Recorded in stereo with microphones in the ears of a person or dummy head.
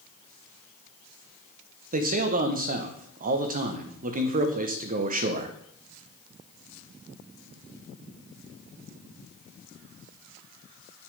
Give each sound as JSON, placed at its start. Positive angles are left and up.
{"t": 1.9, "sound": "a man speaking", "side_deg": -45, "distance_m": 1.4}